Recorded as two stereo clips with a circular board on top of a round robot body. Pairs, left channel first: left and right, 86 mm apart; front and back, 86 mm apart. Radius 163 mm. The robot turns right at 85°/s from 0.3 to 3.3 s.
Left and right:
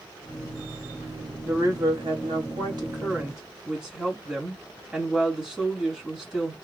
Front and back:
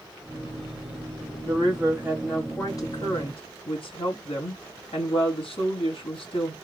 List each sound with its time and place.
1.4 s a woman speaking: 165° right, 2.5 m; by 6.5 s 5° right, 2.5 m